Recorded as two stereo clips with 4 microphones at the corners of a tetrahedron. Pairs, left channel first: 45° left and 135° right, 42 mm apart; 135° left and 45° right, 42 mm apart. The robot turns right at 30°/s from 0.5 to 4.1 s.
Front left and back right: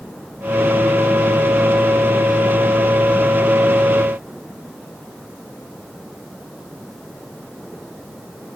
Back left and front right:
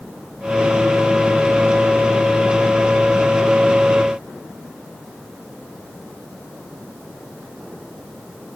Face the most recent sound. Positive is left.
No sound to turn to.